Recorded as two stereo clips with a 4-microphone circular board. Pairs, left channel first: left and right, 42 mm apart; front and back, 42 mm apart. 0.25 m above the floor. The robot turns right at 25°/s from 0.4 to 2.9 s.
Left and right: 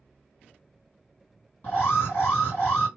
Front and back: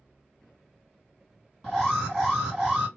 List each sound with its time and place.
1.6 s an alarm: 70° left, 2.5 m; by 2.9 s 105° left, 2.5 m